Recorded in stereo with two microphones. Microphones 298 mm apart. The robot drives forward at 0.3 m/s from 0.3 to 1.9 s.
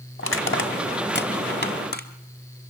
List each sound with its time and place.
0.2 s crushing: 45° left (ahead or behind), 1.1 m; by 2.1 s 30° left (ahead or behind), 1.5 m